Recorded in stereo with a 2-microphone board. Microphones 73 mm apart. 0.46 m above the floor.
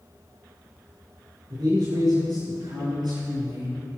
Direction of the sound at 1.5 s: 75° right (ahead or behind).